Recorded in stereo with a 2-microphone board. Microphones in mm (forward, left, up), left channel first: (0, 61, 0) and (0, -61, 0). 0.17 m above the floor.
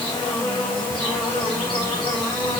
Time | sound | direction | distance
0.0 | an insect | 45° left (ahead or behind) | 6 m